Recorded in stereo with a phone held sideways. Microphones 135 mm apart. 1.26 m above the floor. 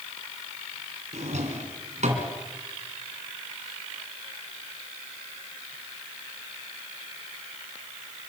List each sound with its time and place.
1.1 s a drawer: 65° right (ahead or behind), 3 m